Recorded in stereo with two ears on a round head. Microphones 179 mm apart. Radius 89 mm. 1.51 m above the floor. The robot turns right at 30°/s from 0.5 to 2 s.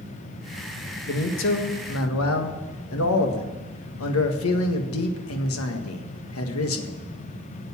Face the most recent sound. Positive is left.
turn(degrees=80)